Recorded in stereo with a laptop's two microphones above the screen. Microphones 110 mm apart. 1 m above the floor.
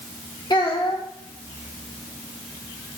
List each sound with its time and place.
0.5 s a child speaking: 45° left (ahead or behind), 1.3 m